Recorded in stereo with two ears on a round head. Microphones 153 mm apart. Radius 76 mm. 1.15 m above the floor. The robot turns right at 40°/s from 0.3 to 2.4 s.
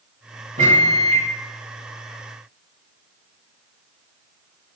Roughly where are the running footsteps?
I don't hear running footsteps.